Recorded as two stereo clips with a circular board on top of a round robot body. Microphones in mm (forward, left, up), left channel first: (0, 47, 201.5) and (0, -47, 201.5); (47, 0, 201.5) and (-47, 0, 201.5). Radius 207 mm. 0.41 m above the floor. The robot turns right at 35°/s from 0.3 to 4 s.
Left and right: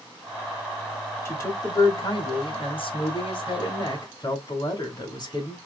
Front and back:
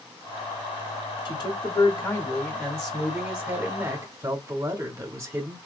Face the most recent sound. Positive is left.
turn(degrees=130)